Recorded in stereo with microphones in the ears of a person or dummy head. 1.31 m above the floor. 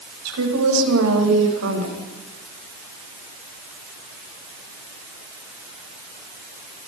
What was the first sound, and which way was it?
A woman speaking, 80° right.